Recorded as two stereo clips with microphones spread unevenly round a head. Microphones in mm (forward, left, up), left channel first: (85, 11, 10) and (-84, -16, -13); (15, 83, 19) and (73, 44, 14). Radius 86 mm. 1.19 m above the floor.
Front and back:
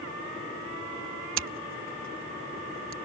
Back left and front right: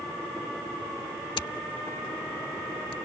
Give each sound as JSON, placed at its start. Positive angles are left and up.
{"t": 1.4, "sound": "scissors", "azimuth_deg": -175}